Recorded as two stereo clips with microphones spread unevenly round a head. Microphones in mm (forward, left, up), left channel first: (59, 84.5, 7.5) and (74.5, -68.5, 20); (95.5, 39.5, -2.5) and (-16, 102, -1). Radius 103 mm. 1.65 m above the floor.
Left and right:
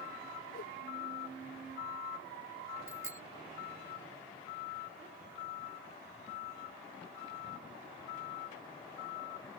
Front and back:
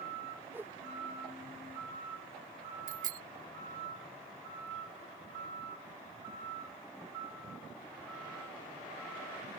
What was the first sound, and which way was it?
A whoosh, 80° left.